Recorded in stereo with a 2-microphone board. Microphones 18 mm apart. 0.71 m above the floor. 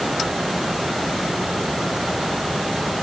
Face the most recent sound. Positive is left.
No sound to turn to.